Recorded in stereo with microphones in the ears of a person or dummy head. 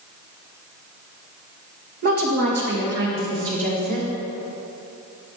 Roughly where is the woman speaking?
Right.